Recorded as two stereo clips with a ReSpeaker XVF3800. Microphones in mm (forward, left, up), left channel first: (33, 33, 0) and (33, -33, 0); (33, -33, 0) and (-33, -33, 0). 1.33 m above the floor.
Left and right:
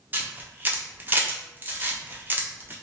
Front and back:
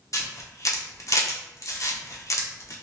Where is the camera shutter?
30° right, 0.6 m.